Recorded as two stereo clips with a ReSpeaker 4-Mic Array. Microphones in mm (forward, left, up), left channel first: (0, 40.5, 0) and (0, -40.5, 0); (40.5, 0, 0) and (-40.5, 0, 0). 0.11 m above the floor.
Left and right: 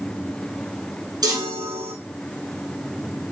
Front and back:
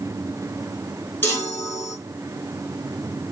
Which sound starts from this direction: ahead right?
A chime, at 1.2 s.